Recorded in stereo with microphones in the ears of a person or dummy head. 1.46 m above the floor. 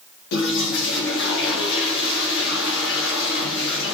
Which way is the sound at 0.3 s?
70° left (ahead or behind).